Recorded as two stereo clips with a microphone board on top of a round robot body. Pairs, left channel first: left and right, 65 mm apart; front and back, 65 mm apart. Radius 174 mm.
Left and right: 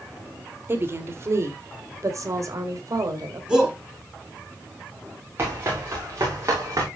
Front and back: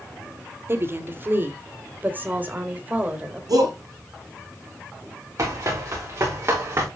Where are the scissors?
I don't hear scissors.